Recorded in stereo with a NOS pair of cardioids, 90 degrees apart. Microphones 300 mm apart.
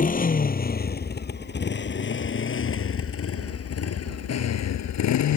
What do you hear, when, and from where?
0.0 s a motorcycle: 25° left; by 5.4 s 65° left